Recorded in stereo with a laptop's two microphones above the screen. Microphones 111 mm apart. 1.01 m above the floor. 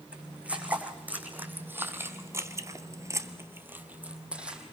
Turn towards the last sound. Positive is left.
turn(degrees=-10)  # may be behind; listen again after turning